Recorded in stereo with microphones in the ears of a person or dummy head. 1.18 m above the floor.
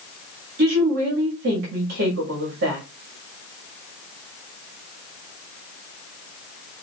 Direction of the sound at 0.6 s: 60° right (ahead or behind).